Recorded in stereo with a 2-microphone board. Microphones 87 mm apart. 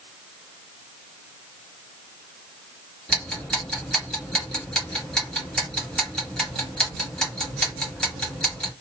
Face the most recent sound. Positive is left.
turn(degrees=10)  # may be behind; listen again after turning